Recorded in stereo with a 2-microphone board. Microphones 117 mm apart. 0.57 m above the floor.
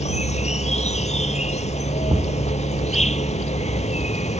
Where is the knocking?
45° right (ahead or behind).